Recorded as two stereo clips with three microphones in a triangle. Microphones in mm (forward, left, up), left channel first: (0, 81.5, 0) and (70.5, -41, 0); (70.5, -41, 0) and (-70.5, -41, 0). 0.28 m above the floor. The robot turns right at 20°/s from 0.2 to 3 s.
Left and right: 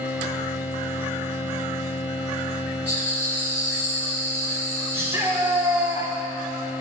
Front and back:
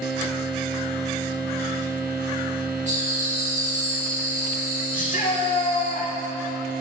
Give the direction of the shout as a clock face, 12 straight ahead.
12 o'clock.